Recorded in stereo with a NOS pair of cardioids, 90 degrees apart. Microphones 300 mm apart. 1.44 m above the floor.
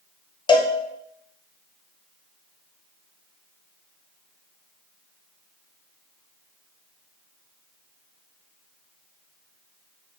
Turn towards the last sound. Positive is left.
turn(degrees=15)